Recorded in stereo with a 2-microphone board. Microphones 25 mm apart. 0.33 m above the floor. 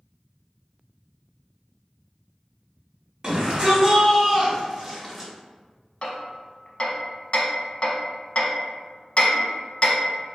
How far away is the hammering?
About 0.6 m.